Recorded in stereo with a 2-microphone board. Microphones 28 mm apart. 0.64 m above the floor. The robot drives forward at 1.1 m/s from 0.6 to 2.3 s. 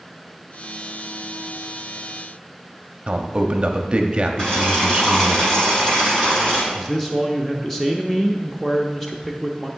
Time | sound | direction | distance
3.1 | a man speaking | 35° right (ahead or behind) | 0.8 m
4.4 | boiling | 25° left (ahead or behind) | 3.5 m
6.7 | a man speaking | 5° left (ahead or behind) | 0.6 m